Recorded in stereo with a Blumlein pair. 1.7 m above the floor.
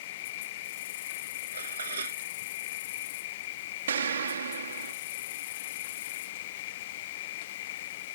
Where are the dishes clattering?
70° right.